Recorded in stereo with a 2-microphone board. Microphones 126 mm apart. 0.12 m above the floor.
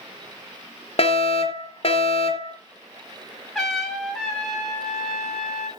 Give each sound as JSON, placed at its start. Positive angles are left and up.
{"t": 1.0, "sound": "a fire alarm", "side_deg": 50, "distance_m": 3.0}
{"t": 3.5, "sound": "a trumpet", "side_deg": 0, "distance_m": 5.0}